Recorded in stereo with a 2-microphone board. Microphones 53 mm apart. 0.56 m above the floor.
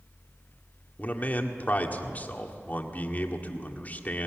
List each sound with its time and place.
1.0 s a man speaking: 35° left (ahead or behind), 1.7 m